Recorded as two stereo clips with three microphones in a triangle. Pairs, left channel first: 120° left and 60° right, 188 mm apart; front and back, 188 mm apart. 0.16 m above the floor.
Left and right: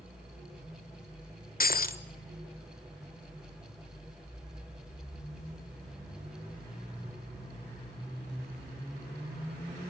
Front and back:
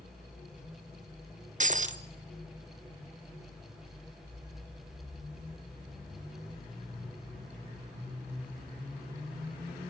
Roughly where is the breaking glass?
Behind left.